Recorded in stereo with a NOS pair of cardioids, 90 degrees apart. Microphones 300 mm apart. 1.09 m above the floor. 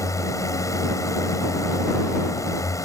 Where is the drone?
10° left.